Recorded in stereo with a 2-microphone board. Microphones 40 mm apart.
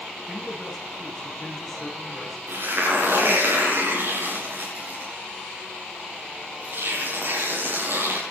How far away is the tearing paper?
About 7.5 m.